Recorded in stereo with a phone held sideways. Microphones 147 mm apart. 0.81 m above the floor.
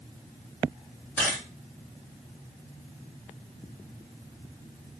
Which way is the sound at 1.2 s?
15° left (ahead or behind).